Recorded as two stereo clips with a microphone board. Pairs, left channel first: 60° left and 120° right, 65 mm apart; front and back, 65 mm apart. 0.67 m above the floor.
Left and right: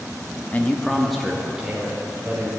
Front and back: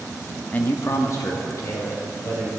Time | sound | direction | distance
0.5 | a man speaking | 40° left | 0.6 m